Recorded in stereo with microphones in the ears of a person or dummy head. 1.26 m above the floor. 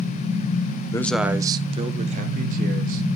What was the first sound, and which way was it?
A man speaking, 15° left (ahead or behind).